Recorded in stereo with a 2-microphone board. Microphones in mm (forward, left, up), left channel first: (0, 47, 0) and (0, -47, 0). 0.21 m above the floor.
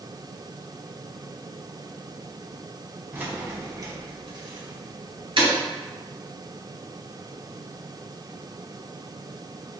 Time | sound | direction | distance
3.1 | keys jangling | 20° right (ahead or behind) | 1.1 m